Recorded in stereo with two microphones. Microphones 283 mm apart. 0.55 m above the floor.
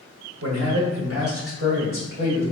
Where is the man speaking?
60° right (ahead or behind), 1.3 m; by 2.4 s 45° right (ahead or behind), 2.5 m.